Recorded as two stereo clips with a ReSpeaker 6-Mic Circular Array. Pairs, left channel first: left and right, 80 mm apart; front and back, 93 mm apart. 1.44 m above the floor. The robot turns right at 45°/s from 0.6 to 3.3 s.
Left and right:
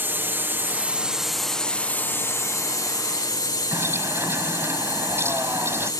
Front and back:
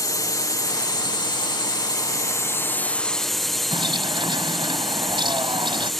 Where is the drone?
35° right; by 6.0 s 85° left.